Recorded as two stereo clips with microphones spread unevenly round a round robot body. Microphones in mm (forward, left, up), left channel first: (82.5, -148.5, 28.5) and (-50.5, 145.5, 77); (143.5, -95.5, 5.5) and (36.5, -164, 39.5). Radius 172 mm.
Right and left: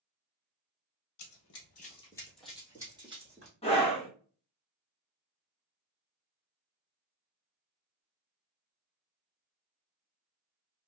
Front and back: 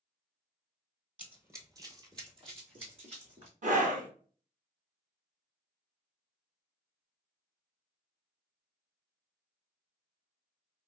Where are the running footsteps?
95° right, 1.2 m; by 3.5 s straight behind, 2 m.